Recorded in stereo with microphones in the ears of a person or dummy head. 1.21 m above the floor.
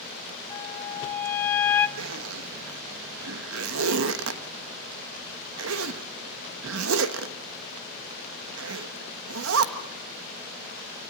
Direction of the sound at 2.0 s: 75° right (ahead or behind).